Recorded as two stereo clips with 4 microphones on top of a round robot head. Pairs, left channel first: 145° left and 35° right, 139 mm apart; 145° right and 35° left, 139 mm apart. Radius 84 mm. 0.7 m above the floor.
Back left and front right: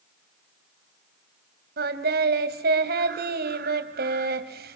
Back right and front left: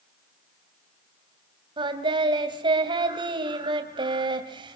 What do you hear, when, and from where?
1.8 s singing: 25° right, 2.5 m